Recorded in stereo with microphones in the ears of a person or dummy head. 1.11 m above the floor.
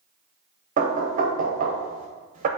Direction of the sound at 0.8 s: 40° right (ahead or behind).